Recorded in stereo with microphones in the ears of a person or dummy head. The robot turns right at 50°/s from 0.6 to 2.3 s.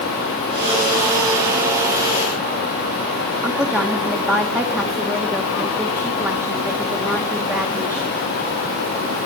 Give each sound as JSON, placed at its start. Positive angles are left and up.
{"t": 3.4, "sound": "a woman speaking", "side_deg": -10, "distance_m": 1.2}